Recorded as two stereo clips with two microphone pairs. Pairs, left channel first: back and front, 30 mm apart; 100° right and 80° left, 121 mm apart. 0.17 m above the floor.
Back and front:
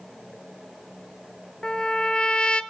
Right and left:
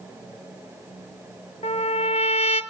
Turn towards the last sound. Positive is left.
turn(degrees=-120)